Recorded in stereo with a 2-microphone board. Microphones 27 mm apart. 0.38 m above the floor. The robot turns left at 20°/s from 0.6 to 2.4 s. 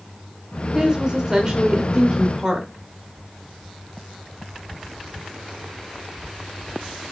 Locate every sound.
0.7 s a woman speaking: 25° right (ahead or behind), 1.3 m; by 2.7 s 30° right (ahead or behind), 1.3 m